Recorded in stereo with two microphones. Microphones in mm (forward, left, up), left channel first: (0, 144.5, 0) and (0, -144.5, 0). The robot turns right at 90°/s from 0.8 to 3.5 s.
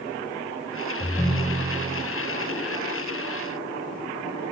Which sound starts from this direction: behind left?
A ringtone, at 1.0 s.